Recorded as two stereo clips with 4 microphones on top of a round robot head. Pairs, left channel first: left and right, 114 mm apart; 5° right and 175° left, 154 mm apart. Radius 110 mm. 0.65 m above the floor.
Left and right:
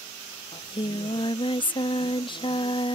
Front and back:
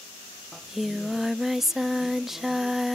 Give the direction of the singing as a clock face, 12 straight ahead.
9 o'clock.